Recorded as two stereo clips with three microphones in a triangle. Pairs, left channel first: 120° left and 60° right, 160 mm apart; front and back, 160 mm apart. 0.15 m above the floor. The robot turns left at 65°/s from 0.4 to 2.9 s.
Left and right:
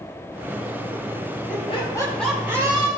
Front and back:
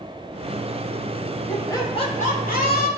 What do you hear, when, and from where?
1.5 s laughter: 80° left, 5.5 m; by 2.9 s 10° right, 5.5 m